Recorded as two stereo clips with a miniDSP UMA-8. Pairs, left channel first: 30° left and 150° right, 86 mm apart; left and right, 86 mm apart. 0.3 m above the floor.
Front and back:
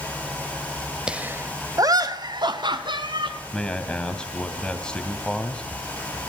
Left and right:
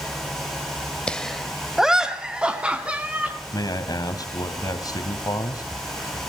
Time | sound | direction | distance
1.1 | laughter | 145° left | 0.9 m
3.5 | a man speaking | 105° left | 2.5 m